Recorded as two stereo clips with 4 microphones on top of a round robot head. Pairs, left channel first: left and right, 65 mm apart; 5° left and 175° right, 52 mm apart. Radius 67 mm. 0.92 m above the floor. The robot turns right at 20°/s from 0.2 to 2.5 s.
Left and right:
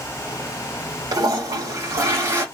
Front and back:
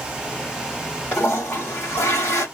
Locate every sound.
1.1 s a toilet flushing: 65° right, 1.7 m; by 2.5 s 40° right, 1.7 m